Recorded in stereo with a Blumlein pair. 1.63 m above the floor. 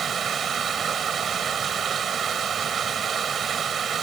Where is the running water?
20° right.